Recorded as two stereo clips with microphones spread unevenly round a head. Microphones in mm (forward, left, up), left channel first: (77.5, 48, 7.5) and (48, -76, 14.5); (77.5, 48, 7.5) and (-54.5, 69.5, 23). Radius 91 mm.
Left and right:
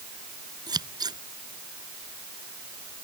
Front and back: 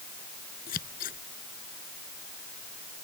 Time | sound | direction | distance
0.7 | scissors | 50° right | ?